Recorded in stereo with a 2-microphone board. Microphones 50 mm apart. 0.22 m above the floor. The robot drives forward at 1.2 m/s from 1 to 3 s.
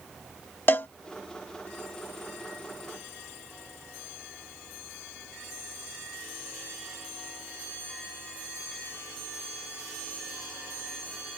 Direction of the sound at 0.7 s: 45° left (ahead or behind).